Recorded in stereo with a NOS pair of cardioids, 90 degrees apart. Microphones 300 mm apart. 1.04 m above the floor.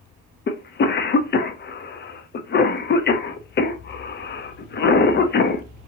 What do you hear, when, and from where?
0.5 s a cough: 35° left, 0.6 m